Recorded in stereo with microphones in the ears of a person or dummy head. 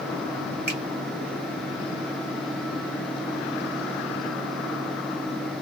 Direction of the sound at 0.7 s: 10° right (ahead or behind).